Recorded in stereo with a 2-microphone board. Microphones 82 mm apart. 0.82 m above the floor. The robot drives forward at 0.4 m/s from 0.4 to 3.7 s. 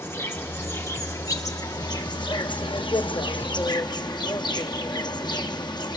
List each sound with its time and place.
0.0 s an insect: 30° left (ahead or behind), 1.2 m; by 6.0 s 65° left (ahead or behind), 0.7 m